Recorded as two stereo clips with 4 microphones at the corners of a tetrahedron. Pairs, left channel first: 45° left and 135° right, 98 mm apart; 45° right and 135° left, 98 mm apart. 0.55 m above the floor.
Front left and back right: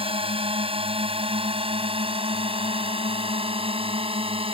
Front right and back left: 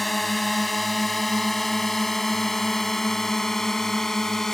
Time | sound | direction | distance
0.0 | a drone | 135° right | ?